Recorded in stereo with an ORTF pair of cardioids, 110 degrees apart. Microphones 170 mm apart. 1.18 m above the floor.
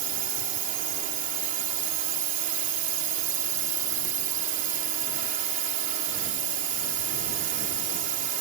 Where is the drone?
60° right.